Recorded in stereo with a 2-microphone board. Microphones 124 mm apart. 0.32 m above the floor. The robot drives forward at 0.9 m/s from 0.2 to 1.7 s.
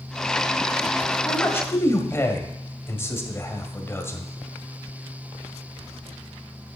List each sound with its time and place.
1.2 s a man speaking: 20° left (ahead or behind), 1.7 m